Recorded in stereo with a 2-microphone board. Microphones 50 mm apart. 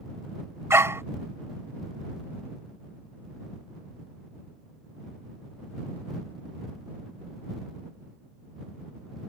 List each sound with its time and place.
0.7 s a dog barking: 65° right (ahead or behind)